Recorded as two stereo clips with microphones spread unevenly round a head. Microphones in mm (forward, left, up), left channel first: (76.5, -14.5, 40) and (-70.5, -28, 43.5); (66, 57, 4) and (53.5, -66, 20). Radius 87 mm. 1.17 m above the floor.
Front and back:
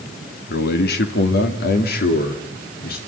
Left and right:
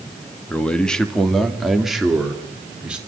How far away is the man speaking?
About 2 m.